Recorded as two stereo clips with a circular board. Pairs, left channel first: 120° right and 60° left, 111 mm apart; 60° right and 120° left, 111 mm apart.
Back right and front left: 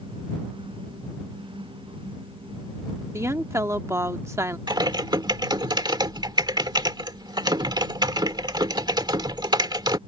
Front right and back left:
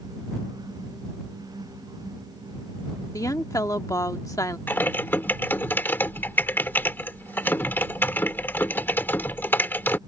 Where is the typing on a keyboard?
10° left.